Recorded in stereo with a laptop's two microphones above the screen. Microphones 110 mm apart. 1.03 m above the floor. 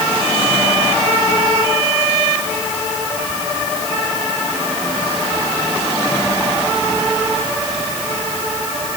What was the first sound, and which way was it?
Only background noise.